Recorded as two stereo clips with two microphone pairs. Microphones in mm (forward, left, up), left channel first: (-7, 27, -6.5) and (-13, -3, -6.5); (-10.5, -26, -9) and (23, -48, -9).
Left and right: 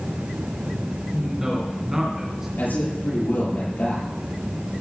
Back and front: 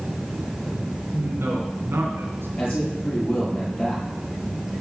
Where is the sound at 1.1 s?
35° right, 3 m.